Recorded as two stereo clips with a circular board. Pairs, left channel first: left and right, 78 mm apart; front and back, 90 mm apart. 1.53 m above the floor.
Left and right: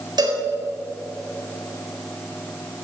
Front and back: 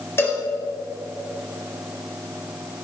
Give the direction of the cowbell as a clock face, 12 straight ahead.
2 o'clock.